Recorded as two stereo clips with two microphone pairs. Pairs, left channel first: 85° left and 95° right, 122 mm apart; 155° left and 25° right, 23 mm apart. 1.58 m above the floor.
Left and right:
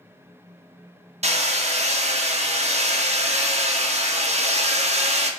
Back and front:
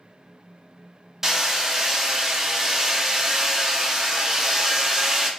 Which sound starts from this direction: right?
Hammering, at 1.2 s.